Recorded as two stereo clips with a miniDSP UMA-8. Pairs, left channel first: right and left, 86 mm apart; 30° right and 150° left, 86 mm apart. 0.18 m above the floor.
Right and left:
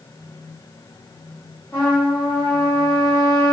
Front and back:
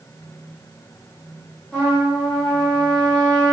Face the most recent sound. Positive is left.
turn(degrees=-85)